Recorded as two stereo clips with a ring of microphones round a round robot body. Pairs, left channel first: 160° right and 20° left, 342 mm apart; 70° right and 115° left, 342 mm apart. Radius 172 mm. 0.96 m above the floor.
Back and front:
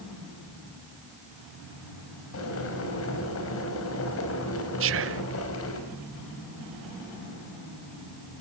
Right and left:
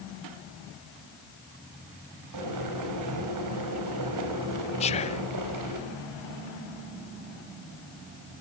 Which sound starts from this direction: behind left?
Boiling, at 2.3 s.